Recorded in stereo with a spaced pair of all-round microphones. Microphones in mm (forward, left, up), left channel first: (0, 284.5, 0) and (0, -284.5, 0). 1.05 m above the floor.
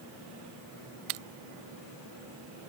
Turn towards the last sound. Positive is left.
No sound to turn to.